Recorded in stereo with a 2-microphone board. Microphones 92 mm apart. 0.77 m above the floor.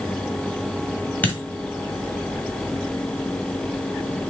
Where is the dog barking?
I don't hear a dog barking.